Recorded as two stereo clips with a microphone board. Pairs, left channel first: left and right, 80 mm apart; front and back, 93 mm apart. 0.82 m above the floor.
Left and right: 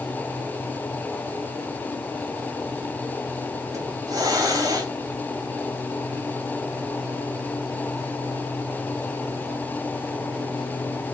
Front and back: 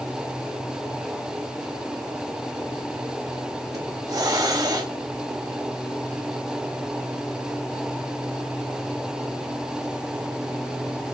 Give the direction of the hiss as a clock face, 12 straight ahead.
4 o'clock.